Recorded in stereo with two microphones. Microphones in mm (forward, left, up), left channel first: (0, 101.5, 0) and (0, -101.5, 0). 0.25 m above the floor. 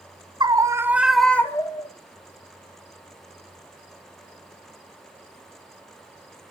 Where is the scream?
20° right (ahead or behind), 1.5 m; by 1.9 s 30° left (ahead or behind), 1.1 m.